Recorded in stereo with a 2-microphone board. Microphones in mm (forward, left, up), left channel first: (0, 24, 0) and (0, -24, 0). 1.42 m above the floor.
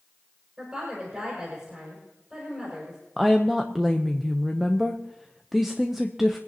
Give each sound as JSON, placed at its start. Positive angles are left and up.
{"t": 0.6, "sound": "a woman speaking", "side_deg": -20, "distance_m": 6.0}
{"t": 3.2, "sound": "a woman speaking", "side_deg": -5, "distance_m": 0.7}